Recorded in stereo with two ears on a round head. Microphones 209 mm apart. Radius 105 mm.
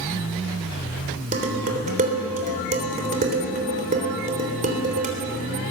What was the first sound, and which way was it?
Dishes clattering, 35° right (ahead or behind).